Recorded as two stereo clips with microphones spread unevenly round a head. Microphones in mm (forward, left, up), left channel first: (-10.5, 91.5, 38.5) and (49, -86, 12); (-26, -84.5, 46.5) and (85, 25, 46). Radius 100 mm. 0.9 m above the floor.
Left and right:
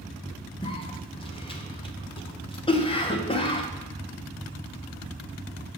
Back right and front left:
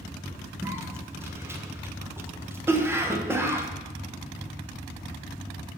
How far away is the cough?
About 0.8 m.